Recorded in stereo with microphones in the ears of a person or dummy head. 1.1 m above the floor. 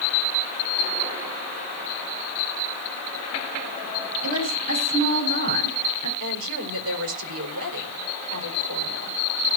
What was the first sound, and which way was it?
A woman speaking, 45° right (ahead or behind).